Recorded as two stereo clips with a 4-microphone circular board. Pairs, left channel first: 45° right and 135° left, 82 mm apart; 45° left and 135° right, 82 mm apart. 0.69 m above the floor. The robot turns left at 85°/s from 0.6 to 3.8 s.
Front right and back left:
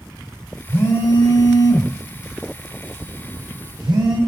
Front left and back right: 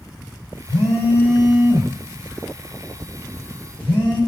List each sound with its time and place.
0.7 s a phone buzzing: 20° left, 2.5 m; by 4.2 s 115° left, 2.5 m